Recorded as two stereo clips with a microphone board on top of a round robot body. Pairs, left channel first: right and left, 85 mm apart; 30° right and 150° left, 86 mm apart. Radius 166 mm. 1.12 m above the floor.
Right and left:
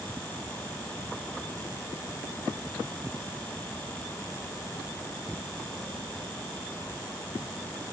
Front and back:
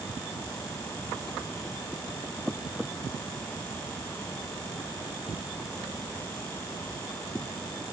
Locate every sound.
Only background noise.